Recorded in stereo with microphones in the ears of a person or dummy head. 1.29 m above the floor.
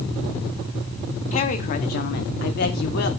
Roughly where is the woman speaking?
Left.